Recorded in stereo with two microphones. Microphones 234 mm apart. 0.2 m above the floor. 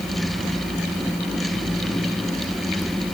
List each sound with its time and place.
Only background noise.